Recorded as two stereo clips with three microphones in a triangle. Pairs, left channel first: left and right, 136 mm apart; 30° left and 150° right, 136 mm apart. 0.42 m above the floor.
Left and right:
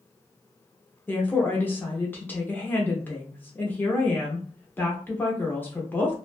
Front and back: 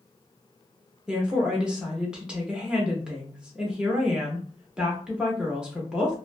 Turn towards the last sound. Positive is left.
turn(degrees=140)